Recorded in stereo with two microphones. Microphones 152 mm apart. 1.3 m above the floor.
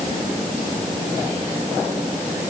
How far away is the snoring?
I don't hear snoring.